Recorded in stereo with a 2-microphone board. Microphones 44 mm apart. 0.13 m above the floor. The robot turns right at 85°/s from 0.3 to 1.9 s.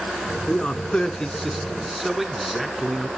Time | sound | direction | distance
0.5 | a man speaking | 20° left (ahead or behind) | 1.1 m